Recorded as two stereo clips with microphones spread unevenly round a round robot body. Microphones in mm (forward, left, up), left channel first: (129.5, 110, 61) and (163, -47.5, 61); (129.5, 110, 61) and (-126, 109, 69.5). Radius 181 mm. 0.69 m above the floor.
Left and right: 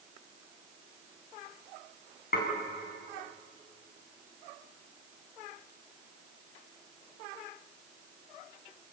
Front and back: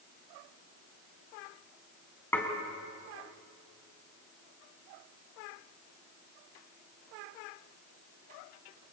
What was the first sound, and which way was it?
Dishes clattering, 80° left.